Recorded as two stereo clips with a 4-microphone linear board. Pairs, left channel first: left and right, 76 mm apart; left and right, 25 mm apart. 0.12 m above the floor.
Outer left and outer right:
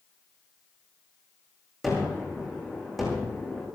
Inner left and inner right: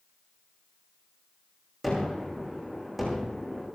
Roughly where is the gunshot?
Centre.